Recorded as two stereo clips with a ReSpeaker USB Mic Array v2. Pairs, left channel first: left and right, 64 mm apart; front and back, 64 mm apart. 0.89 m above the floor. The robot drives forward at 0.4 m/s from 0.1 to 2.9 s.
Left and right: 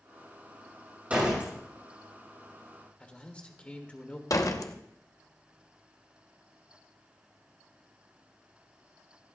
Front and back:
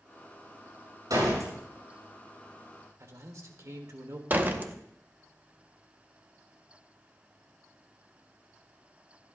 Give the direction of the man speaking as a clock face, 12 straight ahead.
7 o'clock.